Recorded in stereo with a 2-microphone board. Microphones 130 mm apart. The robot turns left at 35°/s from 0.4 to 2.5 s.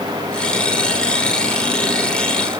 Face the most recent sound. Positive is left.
No sound to turn to.